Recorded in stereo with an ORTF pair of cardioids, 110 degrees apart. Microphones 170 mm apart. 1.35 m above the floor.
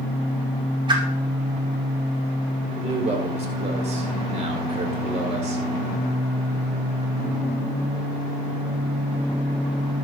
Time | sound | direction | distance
0.9 | a whoosh | 25° right | 5 m
2.8 | a man speaking | 35° right | 4.5 m